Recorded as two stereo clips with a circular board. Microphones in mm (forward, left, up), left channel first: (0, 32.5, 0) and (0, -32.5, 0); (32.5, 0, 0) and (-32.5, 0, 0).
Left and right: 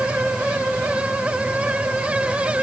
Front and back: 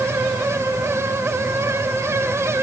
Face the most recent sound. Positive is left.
No sound to turn to.